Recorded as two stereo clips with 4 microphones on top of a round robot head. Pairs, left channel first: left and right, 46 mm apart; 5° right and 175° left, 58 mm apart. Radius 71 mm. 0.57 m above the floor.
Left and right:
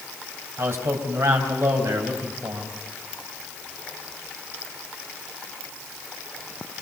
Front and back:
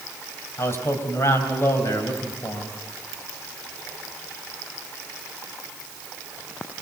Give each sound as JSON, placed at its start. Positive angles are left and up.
{"t": 0.6, "sound": "a man speaking", "azimuth_deg": -55, "distance_m": 4.0}